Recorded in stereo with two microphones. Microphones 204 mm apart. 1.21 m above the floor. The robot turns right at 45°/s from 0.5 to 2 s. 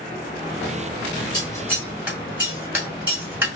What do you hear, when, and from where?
1.3 s scissors: 20° left (ahead or behind), 2.5 m; by 3.5 s 10° right (ahead or behind), 2.5 m